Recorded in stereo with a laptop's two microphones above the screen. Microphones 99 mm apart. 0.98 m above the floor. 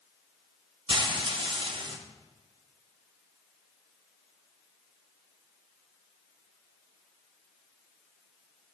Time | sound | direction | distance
0.9 | frying | 55° right (ahead or behind) | 0.5 m